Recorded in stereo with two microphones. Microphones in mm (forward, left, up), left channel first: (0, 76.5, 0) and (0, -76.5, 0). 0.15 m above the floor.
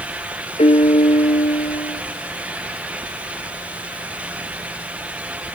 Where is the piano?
45° left (ahead or behind), 0.8 m.